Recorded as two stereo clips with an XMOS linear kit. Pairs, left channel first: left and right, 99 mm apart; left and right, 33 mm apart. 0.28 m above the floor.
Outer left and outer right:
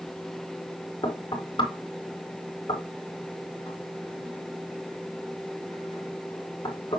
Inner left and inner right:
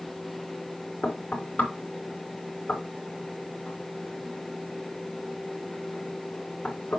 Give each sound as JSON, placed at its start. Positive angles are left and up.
{"t": 1.0, "sound": "knocking", "side_deg": 50, "distance_m": 3.5}